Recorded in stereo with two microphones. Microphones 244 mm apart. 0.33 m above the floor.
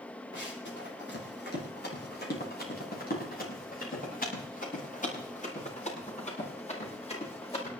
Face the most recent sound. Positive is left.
turn(degrees=25)  # may be behind; listen again after turning